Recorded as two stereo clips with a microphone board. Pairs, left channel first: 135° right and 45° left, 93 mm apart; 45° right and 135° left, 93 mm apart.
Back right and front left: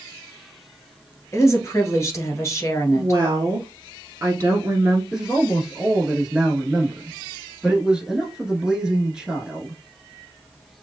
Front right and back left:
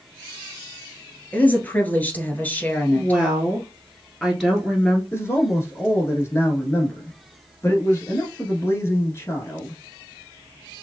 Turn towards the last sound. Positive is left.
turn(degrees=-25)